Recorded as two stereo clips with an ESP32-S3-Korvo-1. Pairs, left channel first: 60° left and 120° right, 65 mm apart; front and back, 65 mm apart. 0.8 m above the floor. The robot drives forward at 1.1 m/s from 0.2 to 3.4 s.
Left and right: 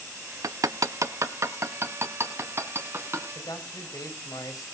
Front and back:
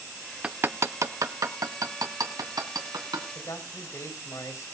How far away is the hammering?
About 0.5 m.